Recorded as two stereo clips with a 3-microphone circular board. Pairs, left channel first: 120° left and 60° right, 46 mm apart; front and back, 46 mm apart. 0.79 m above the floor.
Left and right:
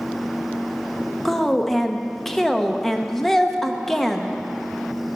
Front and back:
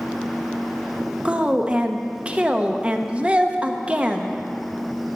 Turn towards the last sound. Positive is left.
turn(degrees=-165)